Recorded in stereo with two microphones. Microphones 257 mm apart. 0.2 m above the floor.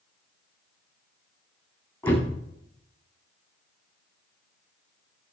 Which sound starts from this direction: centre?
A door slam, at 2.0 s.